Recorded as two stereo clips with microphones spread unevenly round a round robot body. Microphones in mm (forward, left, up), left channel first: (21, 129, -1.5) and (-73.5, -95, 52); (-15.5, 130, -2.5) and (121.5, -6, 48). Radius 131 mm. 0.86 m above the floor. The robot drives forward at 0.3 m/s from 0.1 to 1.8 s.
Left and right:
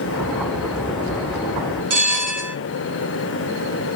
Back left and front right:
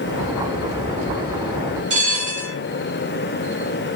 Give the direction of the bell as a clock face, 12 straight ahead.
4 o'clock.